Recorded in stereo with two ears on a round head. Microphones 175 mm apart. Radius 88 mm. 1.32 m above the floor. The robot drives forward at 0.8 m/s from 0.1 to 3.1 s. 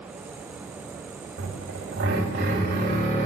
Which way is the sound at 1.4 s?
70° right (ahead or behind).